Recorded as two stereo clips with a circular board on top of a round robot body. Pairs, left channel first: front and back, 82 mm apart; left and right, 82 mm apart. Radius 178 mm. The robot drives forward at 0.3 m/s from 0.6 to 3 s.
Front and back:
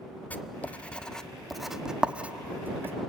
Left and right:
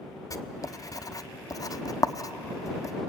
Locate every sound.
0.3 s writing: 65° left, 1.0 m; by 3.0 s 125° left, 1.1 m